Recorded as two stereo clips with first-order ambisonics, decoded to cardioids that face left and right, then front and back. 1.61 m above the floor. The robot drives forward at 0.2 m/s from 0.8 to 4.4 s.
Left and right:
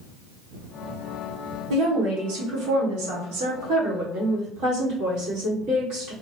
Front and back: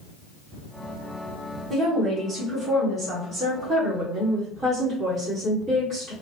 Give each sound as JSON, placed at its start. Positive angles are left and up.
{"t": 1.7, "sound": "a woman speaking", "azimuth_deg": -100, "distance_m": 1.5}